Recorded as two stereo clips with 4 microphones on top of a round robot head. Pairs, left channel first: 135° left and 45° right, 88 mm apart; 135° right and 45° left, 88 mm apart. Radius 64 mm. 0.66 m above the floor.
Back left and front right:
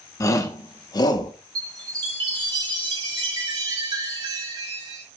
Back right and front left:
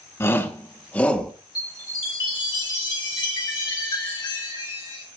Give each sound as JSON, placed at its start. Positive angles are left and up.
{"t": 0.2, "sound": "a shout", "azimuth_deg": 175, "distance_m": 1.6}
{"t": 1.6, "sound": "a chime", "azimuth_deg": -90, "distance_m": 3.0}